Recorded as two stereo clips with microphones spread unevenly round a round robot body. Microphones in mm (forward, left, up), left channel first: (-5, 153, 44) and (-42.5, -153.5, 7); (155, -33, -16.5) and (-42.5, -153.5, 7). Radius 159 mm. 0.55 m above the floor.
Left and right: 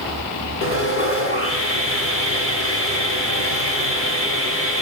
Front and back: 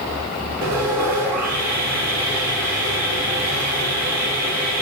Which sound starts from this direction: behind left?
Sawing, at 0.6 s.